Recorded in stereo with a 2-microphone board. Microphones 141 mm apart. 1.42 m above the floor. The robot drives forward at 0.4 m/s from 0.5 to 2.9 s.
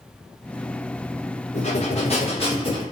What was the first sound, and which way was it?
Breathing, 55° left (ahead or behind).